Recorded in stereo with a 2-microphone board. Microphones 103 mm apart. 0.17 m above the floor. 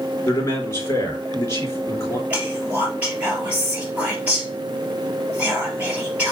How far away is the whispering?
About 3.5 m.